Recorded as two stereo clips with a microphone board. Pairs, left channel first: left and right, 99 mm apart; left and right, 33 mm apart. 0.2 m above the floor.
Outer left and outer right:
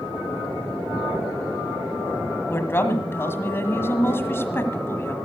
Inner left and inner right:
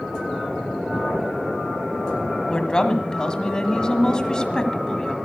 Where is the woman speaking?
25° left (ahead or behind), 1.5 m.